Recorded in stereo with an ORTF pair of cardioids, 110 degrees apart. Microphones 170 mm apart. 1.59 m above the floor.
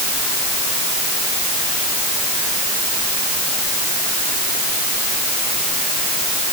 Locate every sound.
Only background noise.